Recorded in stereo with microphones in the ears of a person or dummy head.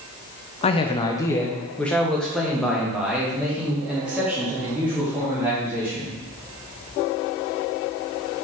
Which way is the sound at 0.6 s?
35° left (ahead or behind).